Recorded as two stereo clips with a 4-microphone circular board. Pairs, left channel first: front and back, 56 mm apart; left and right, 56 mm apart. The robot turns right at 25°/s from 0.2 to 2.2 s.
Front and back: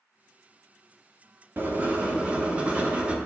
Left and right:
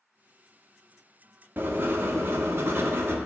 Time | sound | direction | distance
1.6 | writing | 135° right | 0.7 m